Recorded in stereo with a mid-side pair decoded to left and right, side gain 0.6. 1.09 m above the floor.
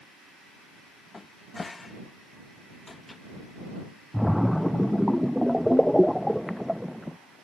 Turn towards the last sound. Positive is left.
turn(degrees=5)